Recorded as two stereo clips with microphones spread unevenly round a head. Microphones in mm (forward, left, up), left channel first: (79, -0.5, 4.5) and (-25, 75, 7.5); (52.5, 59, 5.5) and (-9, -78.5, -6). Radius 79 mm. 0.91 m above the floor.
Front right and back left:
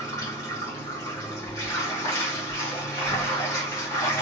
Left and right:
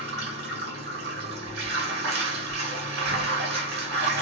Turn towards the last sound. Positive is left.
turn(degrees=-105)